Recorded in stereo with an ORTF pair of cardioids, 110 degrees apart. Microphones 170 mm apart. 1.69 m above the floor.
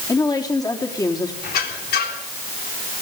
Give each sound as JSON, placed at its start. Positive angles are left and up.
{"t": 0.1, "sound": "a woman speaking", "azimuth_deg": 20, "distance_m": 4.0}
{"t": 1.4, "sound": "a squeak", "azimuth_deg": 65, "distance_m": 3.5}